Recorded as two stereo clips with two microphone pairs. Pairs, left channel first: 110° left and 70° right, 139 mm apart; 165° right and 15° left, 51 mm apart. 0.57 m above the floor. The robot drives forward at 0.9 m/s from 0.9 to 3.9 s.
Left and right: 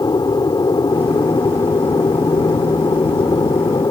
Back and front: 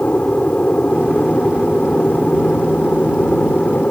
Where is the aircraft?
150° left.